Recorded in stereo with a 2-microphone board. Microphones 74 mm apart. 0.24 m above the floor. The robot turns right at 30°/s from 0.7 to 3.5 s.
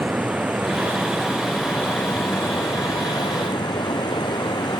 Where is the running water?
20° right; by 4.8 s 65° left.